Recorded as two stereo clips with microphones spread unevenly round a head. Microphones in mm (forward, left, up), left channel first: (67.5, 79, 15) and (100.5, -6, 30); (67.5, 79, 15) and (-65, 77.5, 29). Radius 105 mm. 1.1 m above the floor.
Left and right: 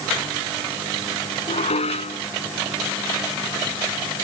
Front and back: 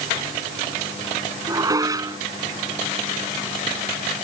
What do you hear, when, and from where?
1.5 s dishes clattering: 120° left